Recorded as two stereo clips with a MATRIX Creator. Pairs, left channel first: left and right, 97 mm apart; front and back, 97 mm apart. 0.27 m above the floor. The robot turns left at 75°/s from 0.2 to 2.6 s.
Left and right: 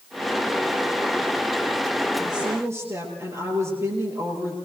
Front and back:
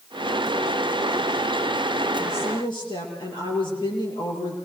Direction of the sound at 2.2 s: Straight ahead.